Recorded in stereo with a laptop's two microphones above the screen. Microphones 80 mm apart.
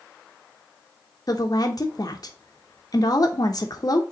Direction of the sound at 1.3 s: 50° left (ahead or behind).